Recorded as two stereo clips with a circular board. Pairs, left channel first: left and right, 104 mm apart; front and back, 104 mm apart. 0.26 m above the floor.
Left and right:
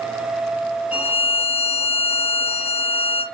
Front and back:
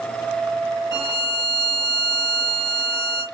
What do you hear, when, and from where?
0.9 s a violin: 20° right, 1.2 m